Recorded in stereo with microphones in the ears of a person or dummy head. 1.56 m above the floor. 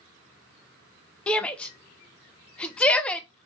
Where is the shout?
10° left (ahead or behind), 0.6 m.